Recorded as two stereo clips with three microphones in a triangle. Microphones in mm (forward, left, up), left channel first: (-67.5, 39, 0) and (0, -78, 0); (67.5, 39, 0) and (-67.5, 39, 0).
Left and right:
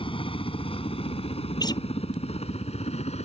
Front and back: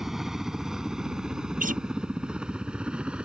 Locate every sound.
0.0 s a helicopter: 95° left; by 3.2 s 100° left
1.6 s a guitar: straight behind